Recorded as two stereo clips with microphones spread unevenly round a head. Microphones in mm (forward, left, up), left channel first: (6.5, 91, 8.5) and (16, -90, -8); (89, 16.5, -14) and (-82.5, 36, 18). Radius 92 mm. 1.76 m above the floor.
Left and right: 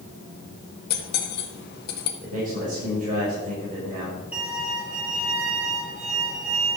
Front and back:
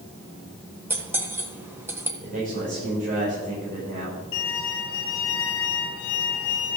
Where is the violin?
Straight ahead, 3 m.